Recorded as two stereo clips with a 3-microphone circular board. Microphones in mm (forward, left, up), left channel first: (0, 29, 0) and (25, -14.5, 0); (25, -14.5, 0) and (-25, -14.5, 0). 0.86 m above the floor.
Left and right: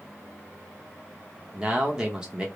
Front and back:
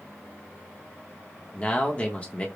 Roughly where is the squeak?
I don't hear a squeak.